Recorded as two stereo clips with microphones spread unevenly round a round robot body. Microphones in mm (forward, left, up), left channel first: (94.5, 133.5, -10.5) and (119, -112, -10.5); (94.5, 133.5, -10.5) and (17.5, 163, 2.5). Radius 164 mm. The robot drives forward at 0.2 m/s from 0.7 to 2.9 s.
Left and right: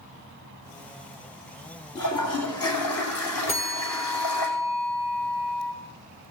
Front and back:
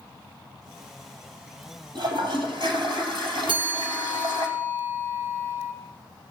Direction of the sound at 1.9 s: 145° left.